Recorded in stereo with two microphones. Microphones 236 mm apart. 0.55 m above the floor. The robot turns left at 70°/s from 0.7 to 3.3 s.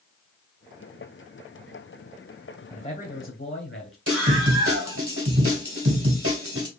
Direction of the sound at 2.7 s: 160° left.